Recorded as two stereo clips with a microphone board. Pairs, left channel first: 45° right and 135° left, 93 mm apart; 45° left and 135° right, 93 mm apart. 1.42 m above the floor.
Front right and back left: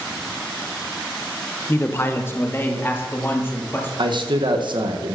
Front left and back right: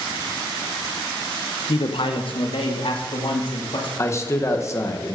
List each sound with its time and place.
1.7 s a man speaking: 20° left, 0.9 m
4.0 s a man speaking: 105° left, 1.2 m